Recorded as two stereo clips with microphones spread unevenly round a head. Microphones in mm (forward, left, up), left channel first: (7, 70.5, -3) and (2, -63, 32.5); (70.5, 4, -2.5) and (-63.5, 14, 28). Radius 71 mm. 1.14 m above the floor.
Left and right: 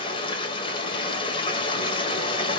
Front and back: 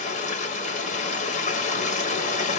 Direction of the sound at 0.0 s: 30° left.